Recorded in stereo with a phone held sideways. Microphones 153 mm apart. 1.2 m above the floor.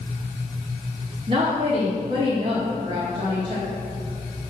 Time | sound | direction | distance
1.3 | a woman speaking | 35° right (ahead or behind) | 1.5 m